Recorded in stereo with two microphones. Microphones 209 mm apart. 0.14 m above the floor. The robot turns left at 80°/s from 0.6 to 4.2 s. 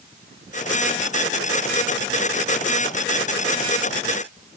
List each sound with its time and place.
Only background noise.